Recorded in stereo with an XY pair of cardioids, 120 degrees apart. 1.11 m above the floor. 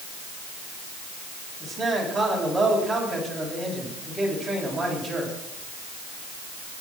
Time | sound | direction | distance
1.6 | a man speaking | 10° right | 8.5 m